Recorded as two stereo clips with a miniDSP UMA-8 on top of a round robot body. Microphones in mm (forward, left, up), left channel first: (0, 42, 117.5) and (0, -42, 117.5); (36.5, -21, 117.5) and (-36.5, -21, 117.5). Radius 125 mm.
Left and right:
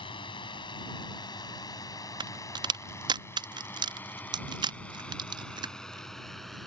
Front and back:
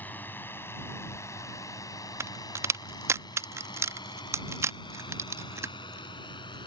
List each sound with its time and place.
0.0 s a drone: 70° left; by 6.7 s straight ahead
2.2 s a crack: 125° right